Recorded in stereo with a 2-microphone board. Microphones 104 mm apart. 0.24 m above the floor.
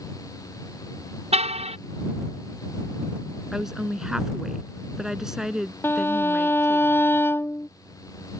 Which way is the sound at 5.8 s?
20° left (ahead or behind).